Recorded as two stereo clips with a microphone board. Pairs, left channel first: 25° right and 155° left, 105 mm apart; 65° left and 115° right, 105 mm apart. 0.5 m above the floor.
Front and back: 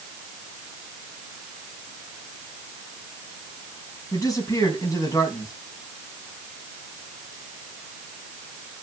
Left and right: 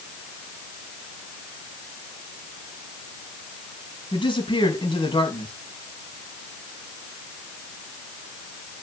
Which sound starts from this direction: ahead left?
A man speaking, at 4.1 s.